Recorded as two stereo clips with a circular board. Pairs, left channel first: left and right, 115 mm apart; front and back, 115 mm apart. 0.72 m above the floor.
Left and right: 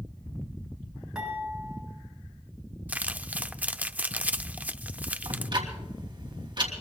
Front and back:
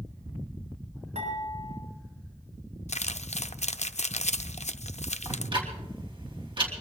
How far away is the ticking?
About 3 m.